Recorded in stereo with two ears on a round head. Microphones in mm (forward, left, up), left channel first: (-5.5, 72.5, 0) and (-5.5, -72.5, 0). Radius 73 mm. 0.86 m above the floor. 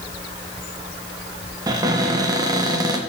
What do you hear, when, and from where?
1.7 s a cupboard door: 25° right (ahead or behind), 0.8 m